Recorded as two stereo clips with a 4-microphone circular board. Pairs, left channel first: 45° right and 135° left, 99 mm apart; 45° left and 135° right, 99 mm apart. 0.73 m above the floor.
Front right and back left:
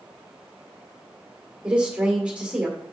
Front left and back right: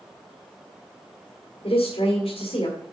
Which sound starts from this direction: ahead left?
A woman speaking, at 1.6 s.